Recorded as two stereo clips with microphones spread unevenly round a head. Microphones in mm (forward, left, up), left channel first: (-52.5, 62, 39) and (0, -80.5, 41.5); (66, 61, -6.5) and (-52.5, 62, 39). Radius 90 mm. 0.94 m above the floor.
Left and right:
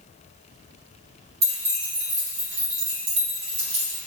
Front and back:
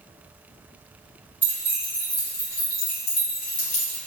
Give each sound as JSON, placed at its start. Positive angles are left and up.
{"t": 1.4, "sound": "keys jangling", "azimuth_deg": -100, "distance_m": 1.2}